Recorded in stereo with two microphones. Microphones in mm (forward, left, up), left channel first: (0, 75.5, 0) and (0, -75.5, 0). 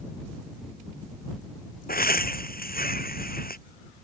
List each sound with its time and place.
1.9 s laughter: 80° left